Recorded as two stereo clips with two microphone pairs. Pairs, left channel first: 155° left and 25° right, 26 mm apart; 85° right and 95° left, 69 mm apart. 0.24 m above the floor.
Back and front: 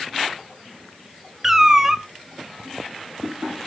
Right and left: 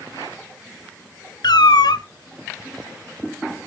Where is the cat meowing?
95° right, 0.5 m.